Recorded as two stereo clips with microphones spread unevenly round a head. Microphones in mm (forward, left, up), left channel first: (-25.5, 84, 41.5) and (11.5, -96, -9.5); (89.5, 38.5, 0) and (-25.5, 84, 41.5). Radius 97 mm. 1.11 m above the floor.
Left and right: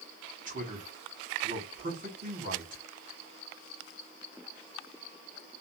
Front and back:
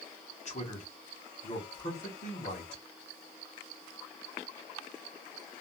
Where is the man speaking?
40° right, 1.3 m.